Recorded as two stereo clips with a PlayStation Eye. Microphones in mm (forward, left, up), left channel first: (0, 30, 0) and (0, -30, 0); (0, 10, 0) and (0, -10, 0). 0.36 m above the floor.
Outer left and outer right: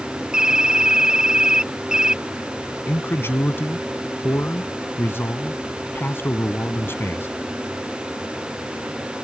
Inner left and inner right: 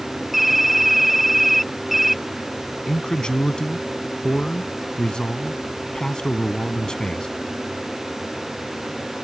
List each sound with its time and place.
0.3 s typing on a keyboard: 15° right (ahead or behind)
2.9 s a man speaking: 40° left (ahead or behind)